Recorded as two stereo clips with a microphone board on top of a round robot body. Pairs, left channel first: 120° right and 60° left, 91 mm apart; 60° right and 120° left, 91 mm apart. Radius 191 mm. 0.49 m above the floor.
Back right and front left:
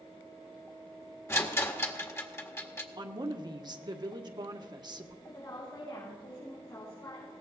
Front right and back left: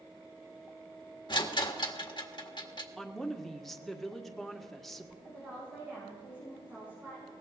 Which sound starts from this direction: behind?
A woman speaking, at 5.2 s.